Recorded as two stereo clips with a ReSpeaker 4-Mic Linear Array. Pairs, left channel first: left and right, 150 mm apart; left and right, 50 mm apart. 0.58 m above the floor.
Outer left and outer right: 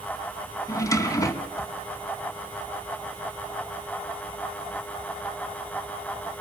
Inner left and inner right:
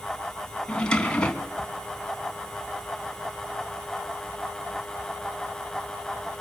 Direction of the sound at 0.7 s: 20° left (ahead or behind).